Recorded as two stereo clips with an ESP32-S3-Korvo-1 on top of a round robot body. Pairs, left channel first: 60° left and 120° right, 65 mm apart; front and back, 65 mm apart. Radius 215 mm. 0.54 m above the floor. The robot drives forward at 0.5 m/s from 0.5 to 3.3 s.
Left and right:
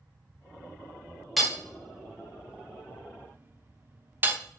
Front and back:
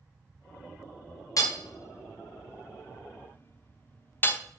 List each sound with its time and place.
1.4 s hammering: 30° right, 1.8 m; by 4.4 s 60° right, 1.1 m